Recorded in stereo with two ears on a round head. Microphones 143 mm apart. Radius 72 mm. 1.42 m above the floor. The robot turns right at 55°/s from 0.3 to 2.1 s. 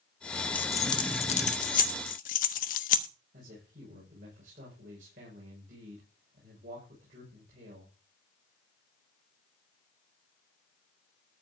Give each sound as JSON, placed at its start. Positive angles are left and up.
{"t": 0.6, "sound": "keys jangling", "side_deg": 10, "distance_m": 1.1}
{"t": 3.3, "sound": "a man speaking", "side_deg": -50, "distance_m": 6.5}